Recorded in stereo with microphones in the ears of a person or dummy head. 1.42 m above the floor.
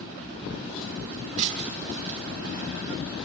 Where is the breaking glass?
45° right (ahead or behind), 7 m.